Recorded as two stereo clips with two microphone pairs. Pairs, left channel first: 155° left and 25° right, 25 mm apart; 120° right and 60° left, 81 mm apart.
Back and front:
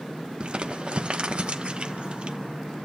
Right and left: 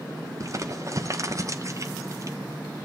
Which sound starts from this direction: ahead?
Crumpling, at 0.4 s.